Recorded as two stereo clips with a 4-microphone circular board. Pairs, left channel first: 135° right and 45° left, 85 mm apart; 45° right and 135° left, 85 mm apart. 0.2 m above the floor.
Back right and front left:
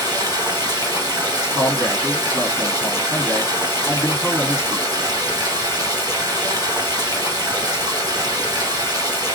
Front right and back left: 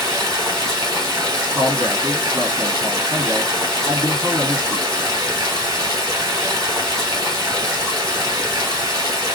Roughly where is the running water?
Left.